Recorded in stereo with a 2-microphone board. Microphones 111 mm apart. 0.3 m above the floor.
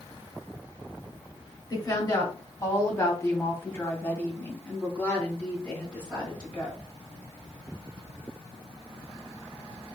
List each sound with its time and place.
1.7 s a woman speaking: 35° left (ahead or behind), 1.8 m; by 6.8 s 10° left (ahead or behind), 3.5 m